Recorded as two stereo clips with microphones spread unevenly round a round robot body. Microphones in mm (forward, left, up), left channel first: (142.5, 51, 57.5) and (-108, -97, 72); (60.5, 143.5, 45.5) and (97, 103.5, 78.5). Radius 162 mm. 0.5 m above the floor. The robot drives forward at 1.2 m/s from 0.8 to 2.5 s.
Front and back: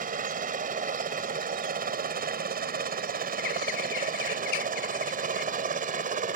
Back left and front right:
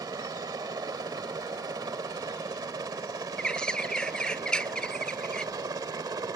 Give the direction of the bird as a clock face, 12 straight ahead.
10 o'clock.